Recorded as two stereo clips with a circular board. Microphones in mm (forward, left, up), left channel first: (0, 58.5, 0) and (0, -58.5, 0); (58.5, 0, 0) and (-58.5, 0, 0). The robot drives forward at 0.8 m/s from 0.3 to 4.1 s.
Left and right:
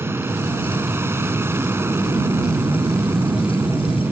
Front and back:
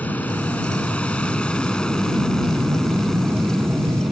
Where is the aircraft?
55° right; by 4.1 s 90° right.